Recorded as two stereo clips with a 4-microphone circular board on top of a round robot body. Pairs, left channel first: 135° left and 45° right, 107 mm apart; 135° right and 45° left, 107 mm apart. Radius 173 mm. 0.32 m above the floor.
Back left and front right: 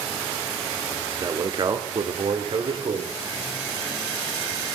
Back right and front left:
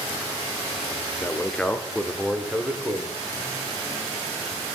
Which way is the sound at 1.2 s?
75° right.